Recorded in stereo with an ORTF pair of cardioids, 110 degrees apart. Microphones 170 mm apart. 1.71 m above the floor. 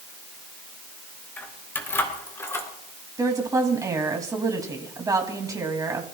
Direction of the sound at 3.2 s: 20° right.